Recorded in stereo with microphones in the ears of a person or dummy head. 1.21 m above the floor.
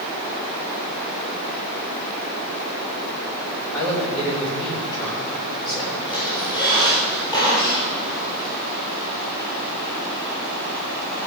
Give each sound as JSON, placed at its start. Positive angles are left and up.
{"t": 3.7, "sound": "a woman speaking", "side_deg": 20, "distance_m": 4.0}
{"t": 6.0, "sound": "a squeak", "side_deg": 25, "distance_m": 3.5}